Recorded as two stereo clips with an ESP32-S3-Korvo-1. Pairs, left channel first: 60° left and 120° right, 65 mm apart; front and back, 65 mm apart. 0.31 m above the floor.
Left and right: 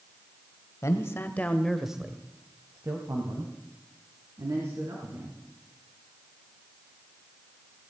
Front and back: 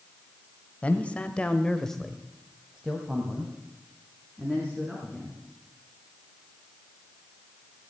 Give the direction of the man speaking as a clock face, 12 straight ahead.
10 o'clock.